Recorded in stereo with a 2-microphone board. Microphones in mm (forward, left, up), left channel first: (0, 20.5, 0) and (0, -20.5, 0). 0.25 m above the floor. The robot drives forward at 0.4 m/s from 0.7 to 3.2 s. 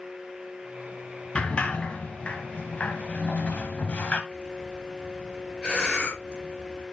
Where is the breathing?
20° left (ahead or behind), 4 m.